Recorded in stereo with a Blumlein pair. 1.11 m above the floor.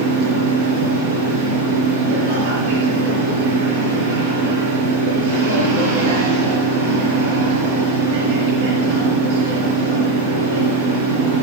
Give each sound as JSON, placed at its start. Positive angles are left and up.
{"t": 0.0, "sound": "a machine running", "azimuth_deg": -45, "distance_m": 4.5}